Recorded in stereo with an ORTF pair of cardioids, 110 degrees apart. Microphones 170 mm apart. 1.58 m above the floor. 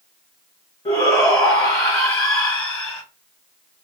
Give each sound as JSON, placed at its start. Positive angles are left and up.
{"t": 0.8, "sound": "a shout", "azimuth_deg": 20, "distance_m": 1.1}